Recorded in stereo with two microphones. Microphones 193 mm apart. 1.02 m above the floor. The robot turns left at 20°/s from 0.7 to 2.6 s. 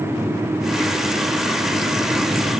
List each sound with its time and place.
Only background noise.